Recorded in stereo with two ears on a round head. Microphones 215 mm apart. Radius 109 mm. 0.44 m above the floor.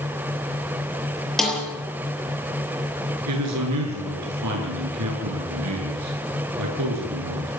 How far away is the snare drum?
About 6.5 m.